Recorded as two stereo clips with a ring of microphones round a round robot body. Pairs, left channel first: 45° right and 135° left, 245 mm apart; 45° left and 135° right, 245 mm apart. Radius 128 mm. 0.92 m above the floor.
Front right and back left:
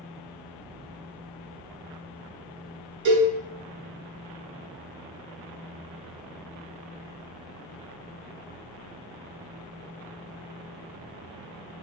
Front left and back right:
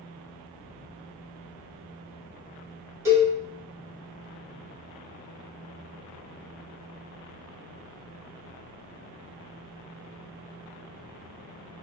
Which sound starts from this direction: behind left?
A cowbell, at 3.0 s.